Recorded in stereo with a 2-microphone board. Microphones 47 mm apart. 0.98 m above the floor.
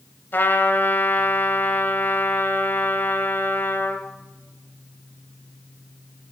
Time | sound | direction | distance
0.3 | a trumpet | 50° left (ahead or behind) | 1.8 m